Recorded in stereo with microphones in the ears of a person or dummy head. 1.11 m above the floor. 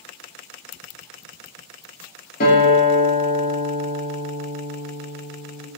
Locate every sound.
2.4 s a guitar: 45° left (ahead or behind), 1.1 m